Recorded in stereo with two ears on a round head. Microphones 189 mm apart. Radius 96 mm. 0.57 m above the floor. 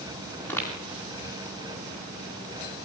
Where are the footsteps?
10° left (ahead or behind), 9.5 m.